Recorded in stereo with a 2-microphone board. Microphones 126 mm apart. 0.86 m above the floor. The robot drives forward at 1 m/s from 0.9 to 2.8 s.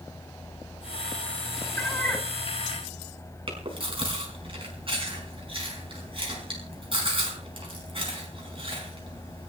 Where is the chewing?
45° right (ahead or behind), 5 m.